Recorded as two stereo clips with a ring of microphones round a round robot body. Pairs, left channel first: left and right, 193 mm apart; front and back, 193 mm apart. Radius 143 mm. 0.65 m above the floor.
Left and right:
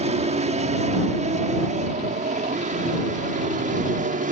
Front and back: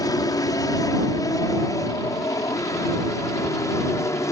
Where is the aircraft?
60° right; by 4.3 s 70° right.